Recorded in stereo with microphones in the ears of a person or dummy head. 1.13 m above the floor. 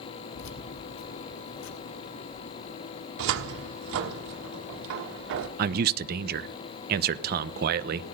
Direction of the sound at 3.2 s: 65° right (ahead or behind).